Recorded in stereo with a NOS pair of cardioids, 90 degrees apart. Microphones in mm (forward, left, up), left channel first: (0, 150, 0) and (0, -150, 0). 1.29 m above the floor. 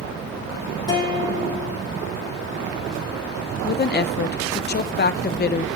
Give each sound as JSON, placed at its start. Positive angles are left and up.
{"t": 0.9, "sound": "a guitar", "azimuth_deg": 15, "distance_m": 5.0}
{"t": 3.6, "sound": "a woman speaking", "azimuth_deg": 30, "distance_m": 1.0}